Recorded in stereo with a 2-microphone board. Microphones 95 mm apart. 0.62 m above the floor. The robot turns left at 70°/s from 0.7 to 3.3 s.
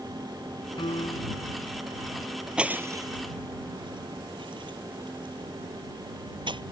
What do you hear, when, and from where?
0.8 s a piano: 115° left; by 1.5 s 65° left
2.6 s breaking glass: 10° right (ahead or behind); by 6.6 s 60° right (ahead or behind)